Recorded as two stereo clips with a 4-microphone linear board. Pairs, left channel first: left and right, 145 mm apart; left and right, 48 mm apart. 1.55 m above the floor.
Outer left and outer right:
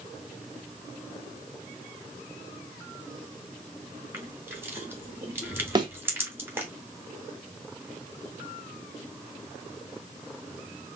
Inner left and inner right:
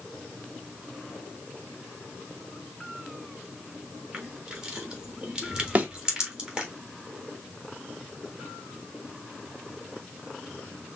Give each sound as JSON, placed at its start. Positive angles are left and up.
{"t": 4.1, "sound": "crushing", "side_deg": -15, "distance_m": 1.6}
{"t": 5.8, "sound": "a thud", "side_deg": -30, "distance_m": 1.1}